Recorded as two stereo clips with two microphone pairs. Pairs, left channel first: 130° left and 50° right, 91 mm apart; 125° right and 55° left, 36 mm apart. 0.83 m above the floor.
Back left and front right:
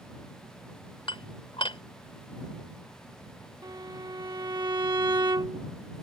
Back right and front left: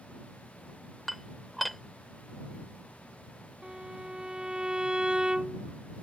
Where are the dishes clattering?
145° left.